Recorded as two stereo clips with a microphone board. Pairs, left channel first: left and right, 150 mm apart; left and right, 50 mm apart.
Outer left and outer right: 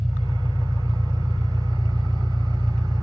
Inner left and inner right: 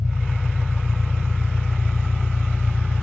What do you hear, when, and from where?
0.0 s an engine running: 5° left (ahead or behind), 1.7 m